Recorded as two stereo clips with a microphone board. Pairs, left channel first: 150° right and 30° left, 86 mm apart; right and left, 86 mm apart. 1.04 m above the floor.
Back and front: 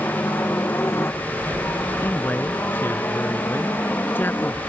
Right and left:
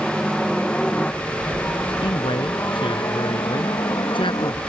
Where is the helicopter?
Straight behind; by 4.7 s 90° right.